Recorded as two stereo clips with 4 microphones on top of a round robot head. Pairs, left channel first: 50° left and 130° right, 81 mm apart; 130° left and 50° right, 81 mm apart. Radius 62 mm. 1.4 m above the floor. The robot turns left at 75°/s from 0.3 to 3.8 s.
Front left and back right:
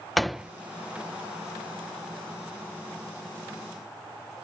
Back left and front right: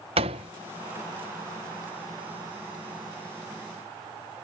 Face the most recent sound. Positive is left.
turn(degrees=55)